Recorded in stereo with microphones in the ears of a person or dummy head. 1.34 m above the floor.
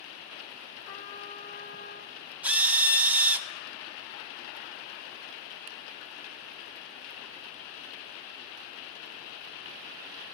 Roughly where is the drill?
Centre.